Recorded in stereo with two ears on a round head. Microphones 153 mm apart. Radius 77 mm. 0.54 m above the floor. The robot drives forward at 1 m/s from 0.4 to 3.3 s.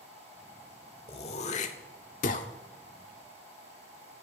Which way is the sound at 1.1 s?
35° left (ahead or behind).